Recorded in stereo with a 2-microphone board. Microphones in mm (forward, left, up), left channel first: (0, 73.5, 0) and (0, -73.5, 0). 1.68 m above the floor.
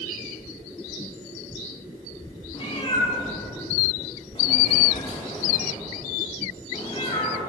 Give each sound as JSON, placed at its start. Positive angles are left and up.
{"t": 2.5, "sound": "a cat meowing", "side_deg": 35, "distance_m": 1.3}